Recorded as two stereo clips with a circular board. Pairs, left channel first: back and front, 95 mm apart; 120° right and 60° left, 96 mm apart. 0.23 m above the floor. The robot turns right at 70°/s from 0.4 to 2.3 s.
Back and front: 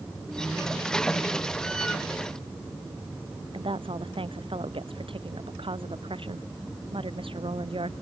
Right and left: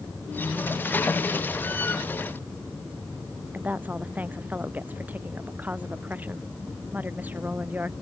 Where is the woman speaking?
10° right.